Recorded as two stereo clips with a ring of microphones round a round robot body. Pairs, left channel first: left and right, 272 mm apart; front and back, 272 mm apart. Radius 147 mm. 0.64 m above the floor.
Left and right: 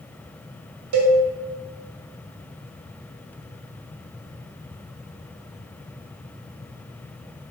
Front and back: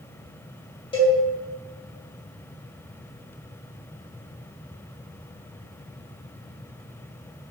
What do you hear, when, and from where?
0.9 s a cowbell: 75° right, 2 m